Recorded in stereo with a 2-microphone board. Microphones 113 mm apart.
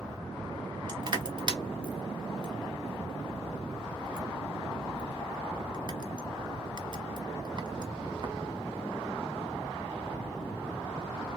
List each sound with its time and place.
0.9 s crushing: 45° right (ahead or behind), 0.9 m